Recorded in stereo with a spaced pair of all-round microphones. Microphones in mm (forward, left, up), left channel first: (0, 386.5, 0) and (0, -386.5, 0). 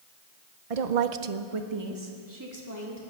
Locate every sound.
0.7 s a woman speaking: 45° right (ahead or behind), 0.8 m; by 3.0 s 20° right (ahead or behind), 3 m